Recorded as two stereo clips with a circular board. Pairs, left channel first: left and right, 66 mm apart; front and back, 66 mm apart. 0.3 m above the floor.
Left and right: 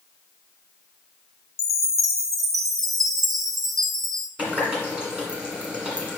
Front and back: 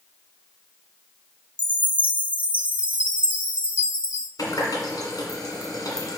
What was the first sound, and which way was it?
A chime, 115° right.